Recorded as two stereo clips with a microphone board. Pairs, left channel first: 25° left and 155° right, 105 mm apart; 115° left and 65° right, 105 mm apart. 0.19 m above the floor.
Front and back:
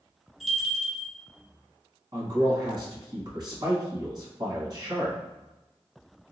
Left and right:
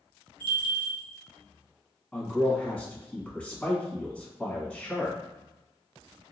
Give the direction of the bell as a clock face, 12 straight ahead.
2 o'clock.